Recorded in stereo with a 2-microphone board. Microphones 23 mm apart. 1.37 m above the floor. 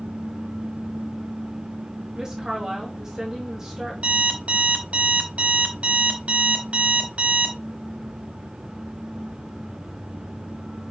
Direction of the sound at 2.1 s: 25° right (ahead or behind).